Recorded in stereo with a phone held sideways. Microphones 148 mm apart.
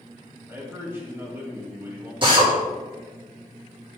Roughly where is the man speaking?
Centre.